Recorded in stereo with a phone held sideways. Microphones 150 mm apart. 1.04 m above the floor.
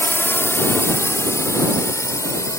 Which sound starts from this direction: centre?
A drone, at 0.0 s.